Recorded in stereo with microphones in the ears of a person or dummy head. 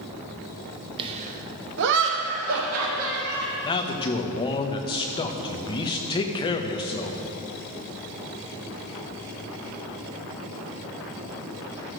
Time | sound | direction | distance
1.0 | laughter | 25° right (ahead or behind) | 1.1 m
3.6 | a man speaking | 20° left (ahead or behind) | 0.9 m